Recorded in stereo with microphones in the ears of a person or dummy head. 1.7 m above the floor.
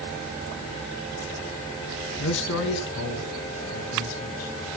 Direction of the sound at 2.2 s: 70° left (ahead or behind).